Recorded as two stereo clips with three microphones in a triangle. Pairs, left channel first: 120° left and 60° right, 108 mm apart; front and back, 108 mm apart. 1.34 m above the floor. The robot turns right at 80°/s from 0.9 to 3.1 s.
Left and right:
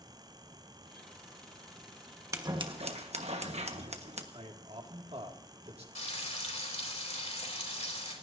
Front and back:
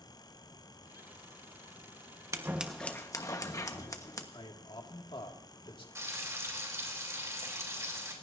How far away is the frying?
About 3 m.